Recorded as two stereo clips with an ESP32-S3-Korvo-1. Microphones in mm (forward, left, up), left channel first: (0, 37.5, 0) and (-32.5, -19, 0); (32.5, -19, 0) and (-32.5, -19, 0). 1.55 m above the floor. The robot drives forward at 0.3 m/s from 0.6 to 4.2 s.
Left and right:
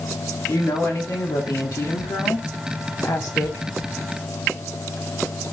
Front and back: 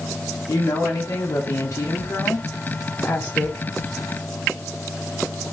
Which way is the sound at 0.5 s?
35° left.